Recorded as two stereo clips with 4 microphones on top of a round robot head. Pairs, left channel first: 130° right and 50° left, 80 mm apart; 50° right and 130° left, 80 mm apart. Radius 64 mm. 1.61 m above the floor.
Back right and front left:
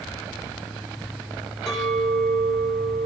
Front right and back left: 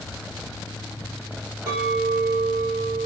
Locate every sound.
1.7 s a clink: 135° left, 2.5 m